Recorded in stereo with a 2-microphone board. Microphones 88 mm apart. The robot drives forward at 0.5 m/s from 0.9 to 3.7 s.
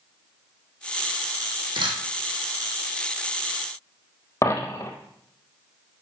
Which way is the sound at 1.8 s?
70° right (ahead or behind).